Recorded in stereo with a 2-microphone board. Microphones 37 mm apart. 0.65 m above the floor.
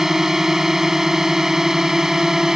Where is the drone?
10° right (ahead or behind); by 2.6 s 15° right (ahead or behind).